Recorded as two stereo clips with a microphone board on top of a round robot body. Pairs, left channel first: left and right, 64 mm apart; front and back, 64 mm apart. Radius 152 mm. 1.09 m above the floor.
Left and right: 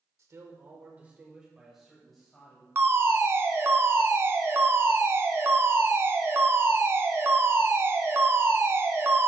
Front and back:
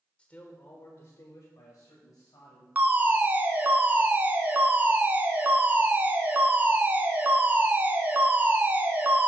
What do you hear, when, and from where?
0.2 s a man speaking: 70° right, 1.3 m; by 2.6 s 10° left, 2.5 m
2.8 s a fire alarm: 125° right, 1.5 m